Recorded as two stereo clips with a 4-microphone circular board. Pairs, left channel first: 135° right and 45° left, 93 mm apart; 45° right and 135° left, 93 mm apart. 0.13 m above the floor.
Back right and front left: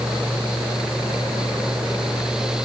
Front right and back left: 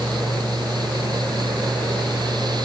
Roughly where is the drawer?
No drawer in this recording.